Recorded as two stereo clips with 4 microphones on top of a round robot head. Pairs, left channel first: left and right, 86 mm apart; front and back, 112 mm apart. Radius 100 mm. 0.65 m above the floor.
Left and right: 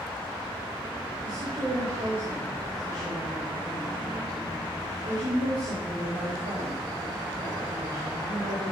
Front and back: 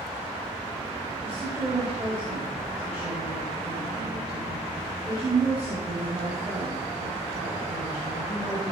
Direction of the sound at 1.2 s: 100° right.